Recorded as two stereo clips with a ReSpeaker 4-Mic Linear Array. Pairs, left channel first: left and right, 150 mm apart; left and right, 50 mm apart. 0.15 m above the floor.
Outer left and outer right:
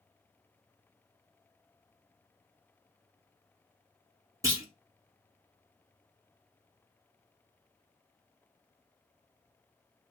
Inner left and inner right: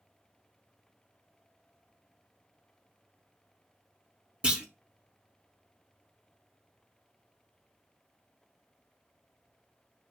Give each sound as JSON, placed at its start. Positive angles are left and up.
{"t": 4.4, "sound": "a clunk", "side_deg": -20, "distance_m": 0.6}